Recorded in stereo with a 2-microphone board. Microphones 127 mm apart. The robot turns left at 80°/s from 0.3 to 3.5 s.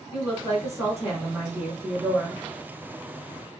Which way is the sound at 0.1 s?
15° right (ahead or behind).